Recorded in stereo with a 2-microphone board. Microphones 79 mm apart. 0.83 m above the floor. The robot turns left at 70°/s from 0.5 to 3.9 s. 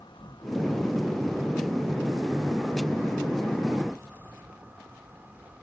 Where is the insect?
85° left, 1.8 m; by 5.6 s 155° right, 1.8 m.